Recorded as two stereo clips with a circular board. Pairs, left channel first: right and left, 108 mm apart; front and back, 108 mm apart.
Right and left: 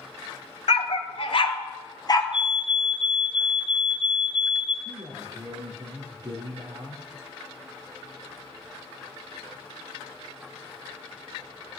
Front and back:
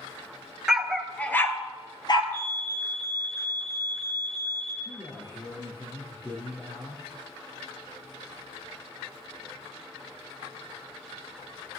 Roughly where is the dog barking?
Right.